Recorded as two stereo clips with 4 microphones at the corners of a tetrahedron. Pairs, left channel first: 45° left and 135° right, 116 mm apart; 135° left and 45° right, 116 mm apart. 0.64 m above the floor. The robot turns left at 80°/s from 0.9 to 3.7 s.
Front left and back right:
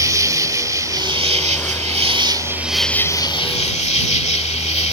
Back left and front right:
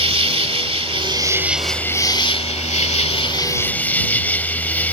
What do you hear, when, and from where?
0.0 s an insect: 75° right; by 4.9 s 60° left